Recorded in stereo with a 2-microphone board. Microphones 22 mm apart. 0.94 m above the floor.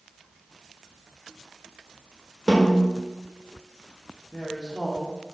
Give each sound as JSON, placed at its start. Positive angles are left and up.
{"t": 2.5, "sound": "a snare drum", "side_deg": 25, "distance_m": 3.5}
{"t": 4.3, "sound": "a woman speaking", "side_deg": 45, "distance_m": 2.0}